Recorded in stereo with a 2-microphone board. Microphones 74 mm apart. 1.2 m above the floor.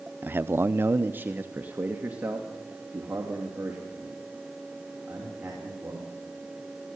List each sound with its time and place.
0.2 s a man speaking: 25° right (ahead or behind), 0.6 m; by 6.1 s 10° right (ahead or behind), 5.5 m